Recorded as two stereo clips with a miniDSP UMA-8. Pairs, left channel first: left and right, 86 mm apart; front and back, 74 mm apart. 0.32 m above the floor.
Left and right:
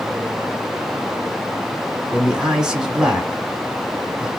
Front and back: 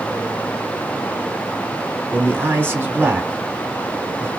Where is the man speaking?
165° right, 1.0 m.